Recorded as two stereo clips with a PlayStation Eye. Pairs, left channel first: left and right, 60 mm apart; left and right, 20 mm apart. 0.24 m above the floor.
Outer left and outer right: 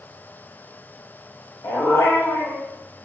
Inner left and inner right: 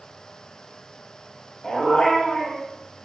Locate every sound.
1.6 s a dog barking: 60° left (ahead or behind), 3 m